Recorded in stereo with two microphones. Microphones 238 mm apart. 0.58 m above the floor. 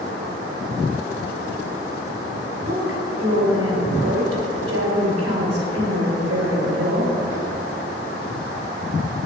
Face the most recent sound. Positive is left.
turn(degrees=-70)  # may be behind; listen again after turning